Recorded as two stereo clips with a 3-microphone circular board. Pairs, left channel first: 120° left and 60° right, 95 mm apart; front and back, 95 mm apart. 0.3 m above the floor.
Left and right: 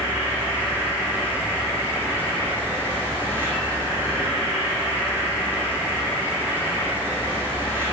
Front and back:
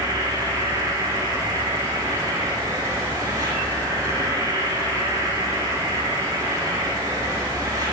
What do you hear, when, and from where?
0.0 s an insect: 125° right, 3 m